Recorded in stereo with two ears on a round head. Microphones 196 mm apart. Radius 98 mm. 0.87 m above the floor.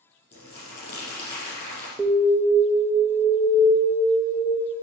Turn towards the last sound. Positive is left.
turn(degrees=0)  # may be behind; listen again after turning